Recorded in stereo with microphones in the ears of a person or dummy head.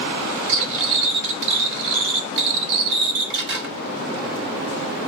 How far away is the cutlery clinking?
About 1.6 m.